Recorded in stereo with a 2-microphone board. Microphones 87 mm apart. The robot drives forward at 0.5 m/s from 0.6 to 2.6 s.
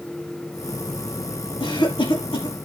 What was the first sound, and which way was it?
A cough, 80° left.